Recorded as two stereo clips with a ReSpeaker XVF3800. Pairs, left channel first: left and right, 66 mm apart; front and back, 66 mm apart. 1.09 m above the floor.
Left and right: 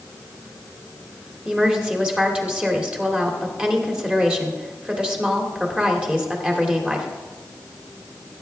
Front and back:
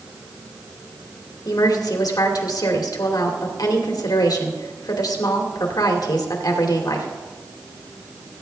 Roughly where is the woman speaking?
Ahead.